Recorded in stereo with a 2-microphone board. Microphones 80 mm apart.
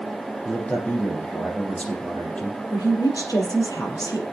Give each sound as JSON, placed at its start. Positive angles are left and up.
{"t": 0.5, "sound": "a man speaking", "side_deg": 15, "distance_m": 4.5}
{"t": 2.7, "sound": "a woman speaking", "side_deg": 50, "distance_m": 4.5}